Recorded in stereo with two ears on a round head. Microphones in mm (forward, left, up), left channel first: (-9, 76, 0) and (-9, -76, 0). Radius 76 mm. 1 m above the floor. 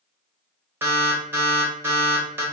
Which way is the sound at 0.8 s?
15° right (ahead or behind).